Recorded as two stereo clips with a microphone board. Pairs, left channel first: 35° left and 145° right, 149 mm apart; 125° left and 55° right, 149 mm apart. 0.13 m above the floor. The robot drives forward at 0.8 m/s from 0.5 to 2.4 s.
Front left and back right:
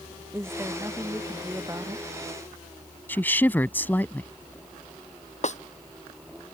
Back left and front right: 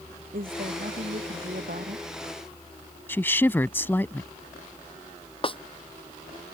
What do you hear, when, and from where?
0.3 s a woman speaking: 70° right; by 2.1 s 75° right
3.1 s a woman speaking: 80° left
5.4 s a snare drum: 70° left